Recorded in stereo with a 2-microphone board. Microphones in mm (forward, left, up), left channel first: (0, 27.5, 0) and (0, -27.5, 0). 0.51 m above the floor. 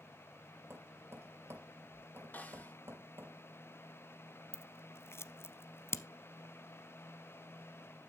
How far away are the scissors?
About 0.7 m.